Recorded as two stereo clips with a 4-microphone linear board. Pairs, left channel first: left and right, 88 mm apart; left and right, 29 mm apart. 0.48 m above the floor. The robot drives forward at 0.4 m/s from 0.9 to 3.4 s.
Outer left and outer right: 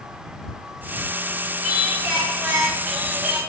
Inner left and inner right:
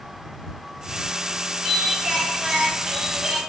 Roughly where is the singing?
Centre.